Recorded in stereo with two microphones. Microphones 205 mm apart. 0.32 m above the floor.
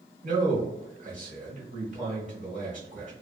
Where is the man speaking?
40° right (ahead or behind), 1.0 m.